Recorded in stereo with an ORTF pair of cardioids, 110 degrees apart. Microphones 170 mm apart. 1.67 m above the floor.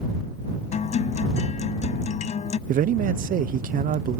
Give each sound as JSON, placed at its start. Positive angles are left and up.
{"t": 0.7, "sound": "a guitar", "azimuth_deg": 45}
{"t": 2.7, "sound": "a man speaking", "azimuth_deg": -55}